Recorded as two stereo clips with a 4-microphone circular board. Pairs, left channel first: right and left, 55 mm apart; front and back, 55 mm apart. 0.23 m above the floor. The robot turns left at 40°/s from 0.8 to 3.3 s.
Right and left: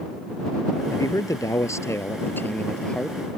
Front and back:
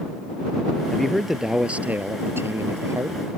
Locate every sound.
0.9 s a man speaking: 80° right; by 3.2 s 170° right